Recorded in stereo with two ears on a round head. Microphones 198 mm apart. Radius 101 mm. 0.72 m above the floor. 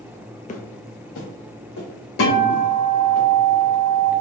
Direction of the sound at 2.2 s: 75° left (ahead or behind).